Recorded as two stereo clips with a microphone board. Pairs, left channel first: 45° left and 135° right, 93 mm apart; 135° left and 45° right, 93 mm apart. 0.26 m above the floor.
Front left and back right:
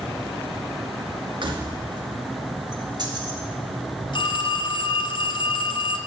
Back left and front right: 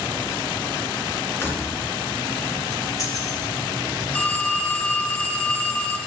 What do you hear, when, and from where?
1.4 s keys jangling: 160° right, 2.5 m; by 3.4 s 175° right, 3 m
4.1 s a phone ringing: 60° left, 1.5 m